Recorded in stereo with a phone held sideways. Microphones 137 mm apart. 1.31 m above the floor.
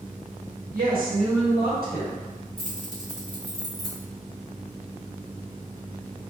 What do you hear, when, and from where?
0.7 s a woman speaking: 75° right (ahead or behind), 1.4 m; by 2.3 s 85° right, 2 m
2.6 s keys jangling: 75° right (ahead or behind), 1.4 m